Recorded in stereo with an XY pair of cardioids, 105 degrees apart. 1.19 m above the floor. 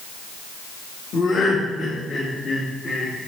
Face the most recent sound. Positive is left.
turn(degrees=60)